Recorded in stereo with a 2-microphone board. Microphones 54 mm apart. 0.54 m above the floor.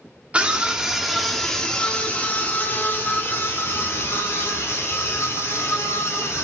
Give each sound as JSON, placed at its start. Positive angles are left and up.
{"t": 0.3, "sound": "a scream", "side_deg": -20, "distance_m": 1.4}